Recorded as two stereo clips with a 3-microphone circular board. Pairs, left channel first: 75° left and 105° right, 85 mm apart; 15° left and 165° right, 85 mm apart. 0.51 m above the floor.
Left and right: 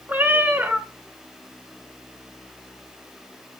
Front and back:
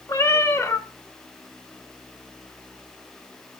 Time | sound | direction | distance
0.1 | a cat meowing | 35° right | 0.8 m